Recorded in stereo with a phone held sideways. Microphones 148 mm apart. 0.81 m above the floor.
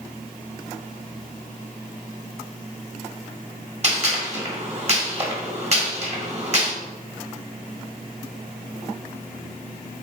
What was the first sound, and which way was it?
A gunshot, 45° right (ahead or behind).